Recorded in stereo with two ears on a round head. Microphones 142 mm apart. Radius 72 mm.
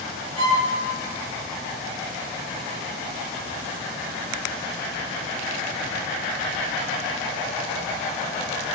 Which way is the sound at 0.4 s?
80° right.